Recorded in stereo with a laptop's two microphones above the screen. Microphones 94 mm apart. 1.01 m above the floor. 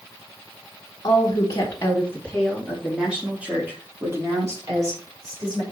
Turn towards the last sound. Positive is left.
turn(degrees=-40)  # may be behind; listen again after turning